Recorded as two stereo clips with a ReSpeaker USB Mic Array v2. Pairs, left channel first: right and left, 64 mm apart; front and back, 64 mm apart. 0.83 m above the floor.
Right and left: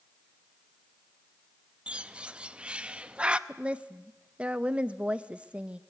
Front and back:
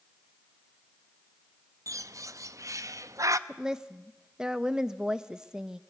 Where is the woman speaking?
125° left, 0.6 m.